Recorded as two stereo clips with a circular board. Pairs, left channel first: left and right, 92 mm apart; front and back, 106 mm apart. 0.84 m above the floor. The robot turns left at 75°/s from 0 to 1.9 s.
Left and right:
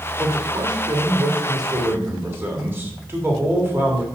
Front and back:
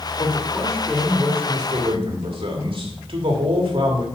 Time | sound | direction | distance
0.2 | a man speaking | 25° right | 1.7 m